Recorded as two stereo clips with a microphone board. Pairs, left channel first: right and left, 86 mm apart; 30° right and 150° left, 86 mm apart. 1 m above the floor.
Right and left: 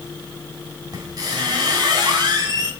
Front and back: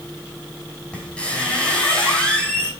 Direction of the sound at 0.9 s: 50° left.